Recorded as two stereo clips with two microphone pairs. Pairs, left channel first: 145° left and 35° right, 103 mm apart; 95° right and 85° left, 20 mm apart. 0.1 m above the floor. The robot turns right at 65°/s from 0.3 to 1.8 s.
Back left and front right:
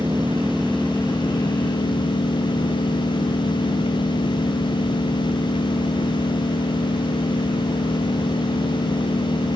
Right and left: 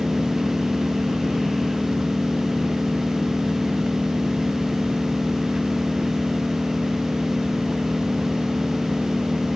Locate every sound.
0.0 s an engine running: 35° left; by 9.6 s 130° left